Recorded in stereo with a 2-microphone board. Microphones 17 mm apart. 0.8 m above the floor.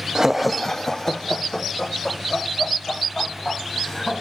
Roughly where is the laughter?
Right.